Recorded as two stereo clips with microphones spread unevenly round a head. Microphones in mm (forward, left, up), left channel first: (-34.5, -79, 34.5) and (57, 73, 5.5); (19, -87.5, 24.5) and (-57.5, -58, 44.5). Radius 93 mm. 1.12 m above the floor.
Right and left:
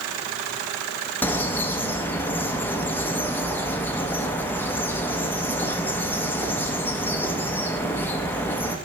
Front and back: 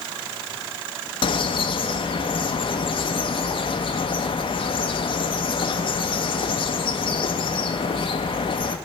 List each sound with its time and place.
1.2 s a bird: 45° right, 0.6 m